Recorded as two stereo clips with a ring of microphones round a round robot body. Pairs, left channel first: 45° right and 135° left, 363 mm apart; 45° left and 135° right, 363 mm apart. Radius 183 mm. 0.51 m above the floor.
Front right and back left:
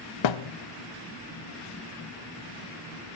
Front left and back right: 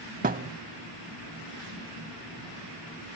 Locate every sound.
0.2 s a thud: 70° right, 0.5 m